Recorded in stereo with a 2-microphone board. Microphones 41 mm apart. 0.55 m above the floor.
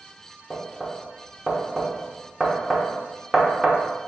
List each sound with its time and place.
0.5 s knocking: 5° right (ahead or behind), 0.7 m